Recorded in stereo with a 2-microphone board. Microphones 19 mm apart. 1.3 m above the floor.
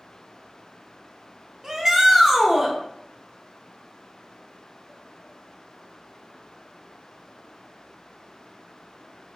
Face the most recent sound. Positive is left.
turn(degrees=-25)  # may be behind; listen again after turning